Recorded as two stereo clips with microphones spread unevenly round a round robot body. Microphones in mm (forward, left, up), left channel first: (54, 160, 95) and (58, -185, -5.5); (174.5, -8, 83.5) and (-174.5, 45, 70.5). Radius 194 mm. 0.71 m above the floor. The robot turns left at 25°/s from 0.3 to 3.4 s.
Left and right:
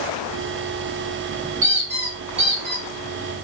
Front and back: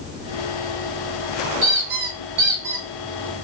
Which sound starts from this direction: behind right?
A squeak, at 1.6 s.